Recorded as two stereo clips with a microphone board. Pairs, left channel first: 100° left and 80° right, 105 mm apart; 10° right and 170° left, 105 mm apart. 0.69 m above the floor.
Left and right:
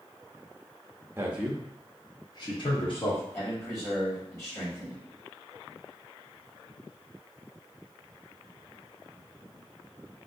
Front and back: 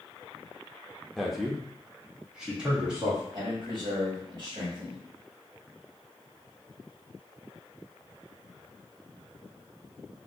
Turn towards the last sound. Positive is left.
turn(degrees=150)